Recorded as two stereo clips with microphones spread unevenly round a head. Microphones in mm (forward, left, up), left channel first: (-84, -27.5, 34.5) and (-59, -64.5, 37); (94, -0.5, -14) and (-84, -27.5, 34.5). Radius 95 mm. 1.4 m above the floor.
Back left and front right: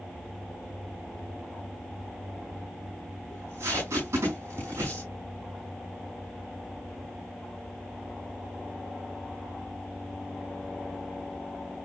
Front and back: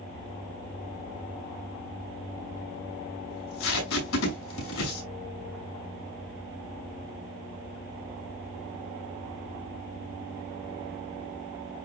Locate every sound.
3.3 s tape being pulled: 5° left, 6 m